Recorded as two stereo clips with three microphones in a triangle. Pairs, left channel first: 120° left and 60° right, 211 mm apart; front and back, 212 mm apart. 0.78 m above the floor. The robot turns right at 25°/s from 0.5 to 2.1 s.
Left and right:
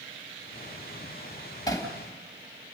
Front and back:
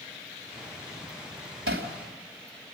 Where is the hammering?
170° right, 2.5 m; by 1.9 s 165° right, 2.5 m.